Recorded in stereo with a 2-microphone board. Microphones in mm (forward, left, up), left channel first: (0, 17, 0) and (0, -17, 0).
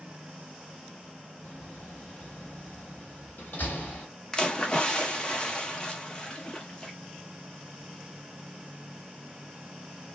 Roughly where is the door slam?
Left.